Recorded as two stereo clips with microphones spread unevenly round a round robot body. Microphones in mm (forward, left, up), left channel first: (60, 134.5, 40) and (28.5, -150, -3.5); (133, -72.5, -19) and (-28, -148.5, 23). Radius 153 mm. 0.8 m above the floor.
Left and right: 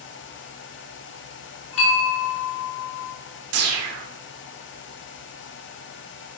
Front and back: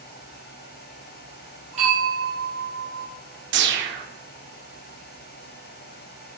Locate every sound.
1.7 s a bell: 135° left, 2.5 m
3.5 s a whoosh: 140° right, 1.1 m